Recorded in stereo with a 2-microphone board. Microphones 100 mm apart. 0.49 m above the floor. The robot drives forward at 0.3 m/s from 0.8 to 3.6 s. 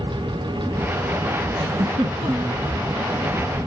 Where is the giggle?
75° right (ahead or behind), 0.9 m; by 2.6 s 65° right (ahead or behind), 0.9 m.